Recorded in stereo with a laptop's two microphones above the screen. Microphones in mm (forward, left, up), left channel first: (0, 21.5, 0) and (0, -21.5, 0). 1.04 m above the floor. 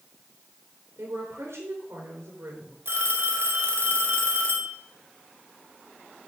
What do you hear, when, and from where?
1.0 s a woman speaking: 80° right, 3 m
2.9 s a phone ringing: 60° right (ahead or behind), 2 m